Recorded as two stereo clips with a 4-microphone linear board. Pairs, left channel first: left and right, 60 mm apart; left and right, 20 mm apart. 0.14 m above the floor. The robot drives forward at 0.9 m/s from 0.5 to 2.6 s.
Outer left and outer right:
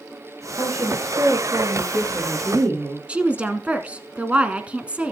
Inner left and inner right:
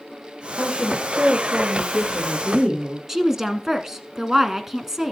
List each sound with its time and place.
0.6 s a woman speaking: 50° right (ahead or behind), 6.5 m; by 3.0 s 65° right (ahead or behind), 5.5 m
3.1 s a woman speaking: 20° right (ahead or behind), 1.2 m